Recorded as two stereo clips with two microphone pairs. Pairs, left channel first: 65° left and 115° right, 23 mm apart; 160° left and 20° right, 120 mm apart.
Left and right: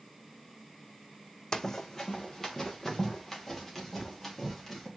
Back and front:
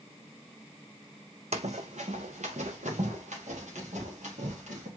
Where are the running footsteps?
10° left, 0.8 m; by 4.9 s 20° right, 4.5 m.